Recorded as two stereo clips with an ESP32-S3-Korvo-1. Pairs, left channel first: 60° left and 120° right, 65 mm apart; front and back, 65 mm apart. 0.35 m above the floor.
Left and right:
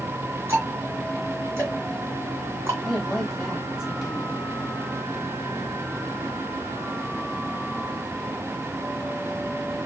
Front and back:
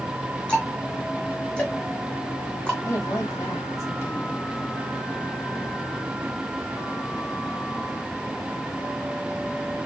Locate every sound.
0.5 s ticking: 70° right, 2 m
2.9 s a woman speaking: 35° right, 2.5 m